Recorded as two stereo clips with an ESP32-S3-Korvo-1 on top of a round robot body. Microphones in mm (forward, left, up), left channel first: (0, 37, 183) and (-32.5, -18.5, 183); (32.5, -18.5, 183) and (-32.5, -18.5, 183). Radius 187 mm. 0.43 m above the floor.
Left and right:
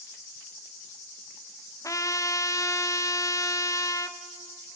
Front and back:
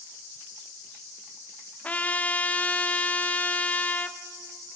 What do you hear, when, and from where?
1.8 s a trumpet: 60° left, 0.9 m